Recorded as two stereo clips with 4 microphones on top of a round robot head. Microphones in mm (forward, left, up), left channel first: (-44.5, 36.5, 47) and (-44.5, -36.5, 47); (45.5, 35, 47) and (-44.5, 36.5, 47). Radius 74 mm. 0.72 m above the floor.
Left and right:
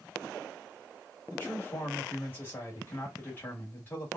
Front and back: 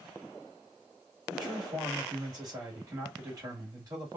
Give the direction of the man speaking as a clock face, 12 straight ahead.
7 o'clock.